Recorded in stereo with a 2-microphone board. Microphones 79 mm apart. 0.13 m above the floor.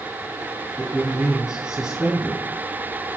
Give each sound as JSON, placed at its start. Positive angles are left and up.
{"t": 0.8, "sound": "a man speaking", "side_deg": -10, "distance_m": 1.2}